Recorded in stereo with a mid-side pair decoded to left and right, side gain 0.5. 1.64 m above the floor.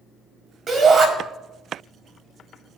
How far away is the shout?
About 4 m.